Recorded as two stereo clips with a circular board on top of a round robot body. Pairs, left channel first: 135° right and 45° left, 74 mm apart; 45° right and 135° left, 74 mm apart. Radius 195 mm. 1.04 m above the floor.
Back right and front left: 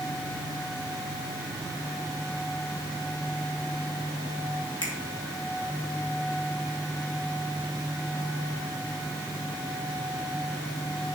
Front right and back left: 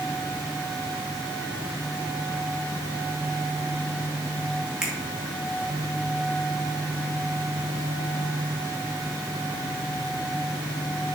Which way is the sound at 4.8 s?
145° right.